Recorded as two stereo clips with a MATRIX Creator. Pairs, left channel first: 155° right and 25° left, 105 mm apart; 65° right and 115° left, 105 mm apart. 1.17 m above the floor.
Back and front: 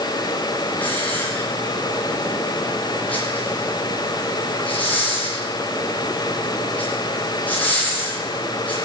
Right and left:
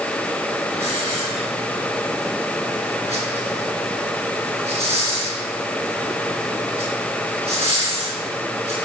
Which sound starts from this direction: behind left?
A hiss, at 0.8 s.